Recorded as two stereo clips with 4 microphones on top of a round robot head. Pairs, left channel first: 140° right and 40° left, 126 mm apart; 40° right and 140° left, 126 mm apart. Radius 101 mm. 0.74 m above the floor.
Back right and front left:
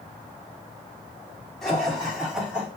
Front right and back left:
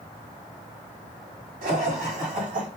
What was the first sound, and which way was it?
Laughter, 130° left.